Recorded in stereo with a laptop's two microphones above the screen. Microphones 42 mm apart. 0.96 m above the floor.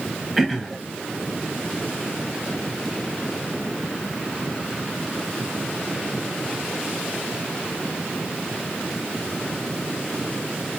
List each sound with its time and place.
0.4 s throat clearing: 5° right (ahead or behind), 0.8 m